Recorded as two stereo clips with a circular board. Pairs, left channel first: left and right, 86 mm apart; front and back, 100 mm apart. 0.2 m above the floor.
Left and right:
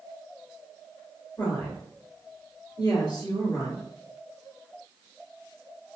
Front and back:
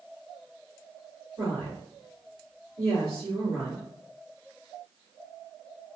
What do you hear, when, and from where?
1.4 s a woman speaking: 125° left, 2.0 m